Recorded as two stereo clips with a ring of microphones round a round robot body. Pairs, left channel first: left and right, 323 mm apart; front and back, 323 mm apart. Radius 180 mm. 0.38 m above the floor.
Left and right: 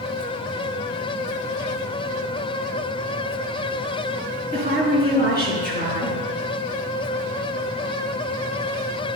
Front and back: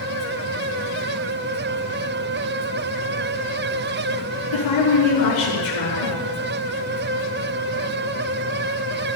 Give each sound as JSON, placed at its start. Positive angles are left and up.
{"t": 4.5, "sound": "a woman speaking", "azimuth_deg": 30, "distance_m": 4.5}